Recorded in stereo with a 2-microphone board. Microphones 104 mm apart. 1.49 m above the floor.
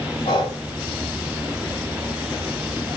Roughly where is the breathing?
Left.